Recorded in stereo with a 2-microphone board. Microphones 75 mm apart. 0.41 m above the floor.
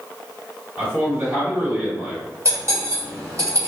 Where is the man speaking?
20° right (ahead or behind), 1.9 m.